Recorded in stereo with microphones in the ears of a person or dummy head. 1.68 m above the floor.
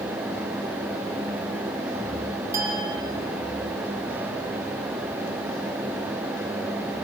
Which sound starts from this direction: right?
A clink, at 2.5 s.